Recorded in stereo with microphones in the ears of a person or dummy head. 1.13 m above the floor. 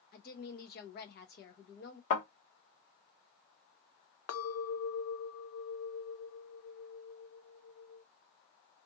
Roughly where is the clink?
Left.